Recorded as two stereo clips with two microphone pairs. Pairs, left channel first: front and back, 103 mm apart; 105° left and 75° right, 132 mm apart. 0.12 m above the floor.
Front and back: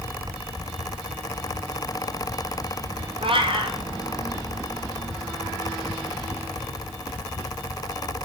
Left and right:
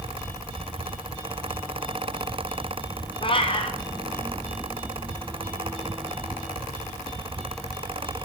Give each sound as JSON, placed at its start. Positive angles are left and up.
{"t": 3.2, "sound": "a cat meowing", "azimuth_deg": 155, "distance_m": 1.2}